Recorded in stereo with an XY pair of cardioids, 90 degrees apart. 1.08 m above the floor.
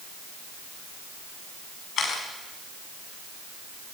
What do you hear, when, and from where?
2.0 s a camera shutter: 70° left, 5.5 m